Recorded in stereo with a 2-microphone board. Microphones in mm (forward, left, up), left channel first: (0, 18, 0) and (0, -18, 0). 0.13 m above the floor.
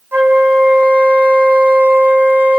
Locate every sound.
0.1 s a flute: 80° right, 3.5 m